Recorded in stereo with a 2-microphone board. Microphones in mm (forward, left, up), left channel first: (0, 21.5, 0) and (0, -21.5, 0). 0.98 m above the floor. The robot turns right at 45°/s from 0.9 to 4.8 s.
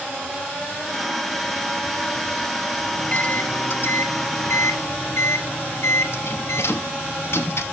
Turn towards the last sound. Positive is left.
turn(degrees=105)